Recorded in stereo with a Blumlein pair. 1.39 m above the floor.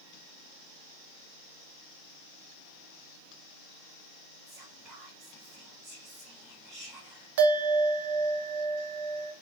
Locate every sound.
4.5 s whispering: 25° right, 1.5 m
7.4 s a bell: 55° right, 0.7 m